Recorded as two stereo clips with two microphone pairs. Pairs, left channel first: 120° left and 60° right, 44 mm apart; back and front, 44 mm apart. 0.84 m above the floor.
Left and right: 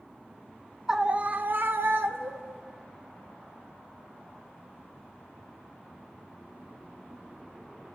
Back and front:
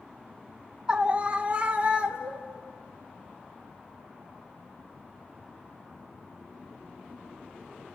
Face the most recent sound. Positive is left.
turn(degrees=-60)